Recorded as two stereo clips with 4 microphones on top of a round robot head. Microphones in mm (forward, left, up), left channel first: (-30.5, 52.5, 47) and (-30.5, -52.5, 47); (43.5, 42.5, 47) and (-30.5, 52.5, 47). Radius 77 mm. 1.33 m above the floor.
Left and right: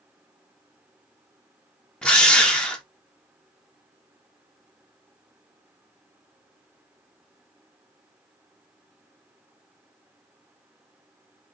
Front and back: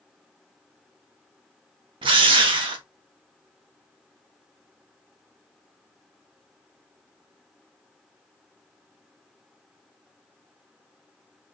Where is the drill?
170° left, 0.8 m.